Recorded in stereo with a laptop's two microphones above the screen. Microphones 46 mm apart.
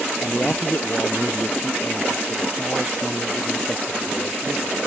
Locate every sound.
0.2 s a man speaking: 35° left (ahead or behind); by 4.9 s 40° left (ahead or behind)